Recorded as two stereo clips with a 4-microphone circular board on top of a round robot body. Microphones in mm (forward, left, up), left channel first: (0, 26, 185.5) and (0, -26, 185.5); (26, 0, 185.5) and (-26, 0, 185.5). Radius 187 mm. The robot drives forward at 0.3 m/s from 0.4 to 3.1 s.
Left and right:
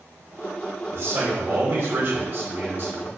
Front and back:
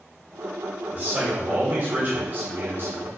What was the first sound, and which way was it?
A man speaking, 120° right.